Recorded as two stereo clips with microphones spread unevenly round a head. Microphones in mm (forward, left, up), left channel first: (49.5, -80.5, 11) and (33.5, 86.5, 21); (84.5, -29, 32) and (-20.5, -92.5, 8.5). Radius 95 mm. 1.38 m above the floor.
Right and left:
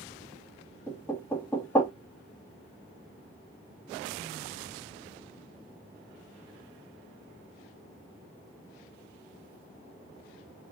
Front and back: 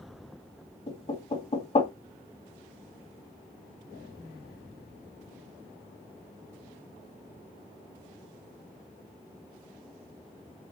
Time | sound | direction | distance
0.9 | knocking | 5° right | 2 m